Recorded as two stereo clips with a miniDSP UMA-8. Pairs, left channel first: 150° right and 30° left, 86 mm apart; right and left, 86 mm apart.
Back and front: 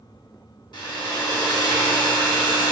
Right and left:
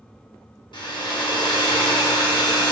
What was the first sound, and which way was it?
A hair dryer, 120° right.